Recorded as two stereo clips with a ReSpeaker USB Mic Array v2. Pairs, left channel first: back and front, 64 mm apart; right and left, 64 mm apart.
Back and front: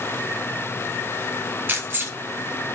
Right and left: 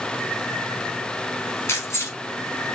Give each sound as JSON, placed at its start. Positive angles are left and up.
{"t": 1.7, "sound": "keys jangling", "azimuth_deg": -50, "distance_m": 2.0}